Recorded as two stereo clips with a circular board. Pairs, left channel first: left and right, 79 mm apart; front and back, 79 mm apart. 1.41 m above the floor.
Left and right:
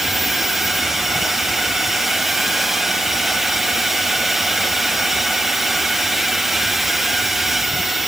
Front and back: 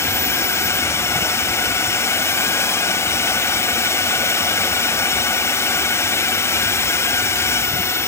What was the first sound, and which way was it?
A drone, 5° right.